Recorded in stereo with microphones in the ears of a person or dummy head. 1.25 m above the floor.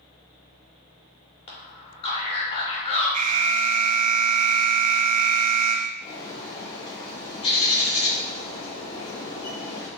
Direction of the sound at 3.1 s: 40° right (ahead or behind).